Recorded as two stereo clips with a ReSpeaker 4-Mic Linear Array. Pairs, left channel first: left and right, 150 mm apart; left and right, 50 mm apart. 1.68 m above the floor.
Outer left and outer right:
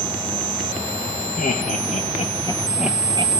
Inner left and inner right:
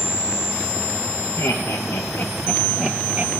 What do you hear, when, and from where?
1.4 s laughter: 70° left (ahead or behind), 1.1 m; by 3.3 s 40° right (ahead or behind), 0.6 m